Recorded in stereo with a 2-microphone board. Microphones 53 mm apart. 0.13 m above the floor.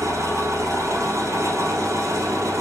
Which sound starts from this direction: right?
An engine running, at 0.0 s.